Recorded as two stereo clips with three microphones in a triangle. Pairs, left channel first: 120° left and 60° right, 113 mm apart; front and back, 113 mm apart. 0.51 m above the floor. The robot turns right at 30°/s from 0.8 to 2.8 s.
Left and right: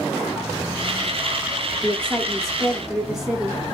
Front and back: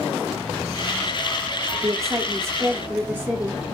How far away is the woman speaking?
About 1.2 m.